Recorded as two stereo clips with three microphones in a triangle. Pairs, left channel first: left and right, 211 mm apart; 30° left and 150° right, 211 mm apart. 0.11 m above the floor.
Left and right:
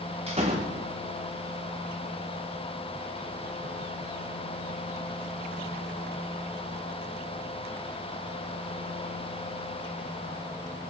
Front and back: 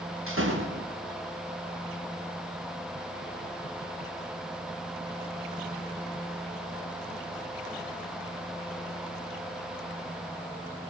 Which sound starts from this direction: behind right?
A door slam, at 0.3 s.